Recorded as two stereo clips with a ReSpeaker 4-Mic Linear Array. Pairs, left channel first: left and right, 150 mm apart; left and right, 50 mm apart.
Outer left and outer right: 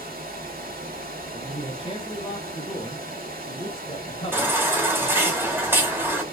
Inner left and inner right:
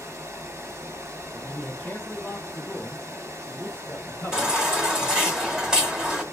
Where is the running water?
85° right, 0.8 m.